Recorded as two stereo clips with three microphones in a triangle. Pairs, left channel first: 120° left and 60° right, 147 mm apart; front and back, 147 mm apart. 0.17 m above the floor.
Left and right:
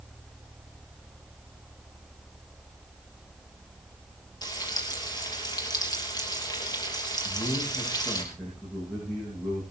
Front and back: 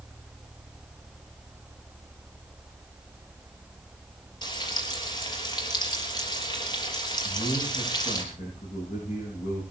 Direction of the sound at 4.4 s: 60° left.